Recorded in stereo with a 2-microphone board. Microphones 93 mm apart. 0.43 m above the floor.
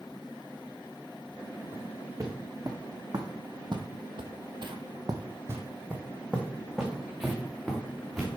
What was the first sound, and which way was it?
Footsteps, 30° right (ahead or behind).